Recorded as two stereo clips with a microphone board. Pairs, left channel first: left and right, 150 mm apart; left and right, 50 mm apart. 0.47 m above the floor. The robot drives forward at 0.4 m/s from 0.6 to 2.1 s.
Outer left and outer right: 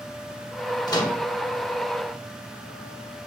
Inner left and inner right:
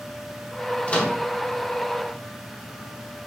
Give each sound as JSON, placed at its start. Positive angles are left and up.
{"t": 0.9, "sound": "a microwave", "side_deg": 25, "distance_m": 0.6}